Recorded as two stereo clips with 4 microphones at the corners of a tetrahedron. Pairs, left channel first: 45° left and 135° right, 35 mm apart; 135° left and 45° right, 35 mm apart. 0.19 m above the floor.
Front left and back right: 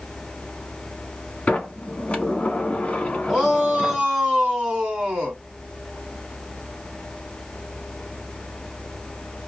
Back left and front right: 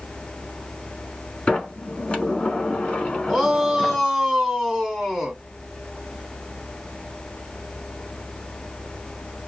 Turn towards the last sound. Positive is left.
turn(degrees=-120)